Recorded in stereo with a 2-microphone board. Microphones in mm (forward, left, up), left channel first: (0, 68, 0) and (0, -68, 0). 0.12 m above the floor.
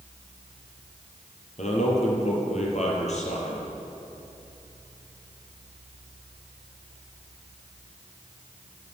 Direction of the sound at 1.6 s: 55° left (ahead or behind).